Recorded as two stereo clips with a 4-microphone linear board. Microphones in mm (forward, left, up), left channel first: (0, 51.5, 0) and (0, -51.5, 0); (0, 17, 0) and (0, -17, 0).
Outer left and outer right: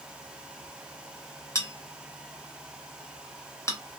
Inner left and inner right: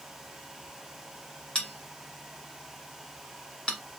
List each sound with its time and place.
1.6 s a bell: 30° left (ahead or behind), 1.1 m